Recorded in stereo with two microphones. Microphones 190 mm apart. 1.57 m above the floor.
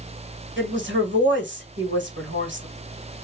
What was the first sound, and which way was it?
A woman speaking, 80° right.